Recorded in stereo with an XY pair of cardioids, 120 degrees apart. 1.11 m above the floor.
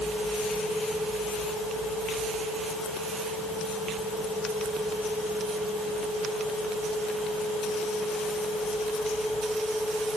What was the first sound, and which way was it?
Only background noise.